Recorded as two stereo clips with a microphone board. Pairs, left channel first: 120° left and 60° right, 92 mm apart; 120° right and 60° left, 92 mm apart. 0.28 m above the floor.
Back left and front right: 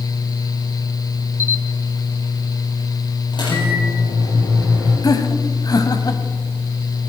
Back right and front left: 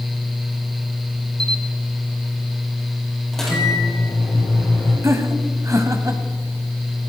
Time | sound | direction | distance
1.4 | a camera shutter | 50° right | 1.5 m
3.3 | a microwave | 155° left | 7 m
5.0 | laughter | 100° left | 1.9 m